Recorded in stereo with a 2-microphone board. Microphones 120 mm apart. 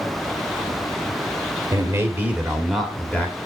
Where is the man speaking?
25° right (ahead or behind), 1.7 m; by 3.4 s 15° left (ahead or behind), 1.6 m.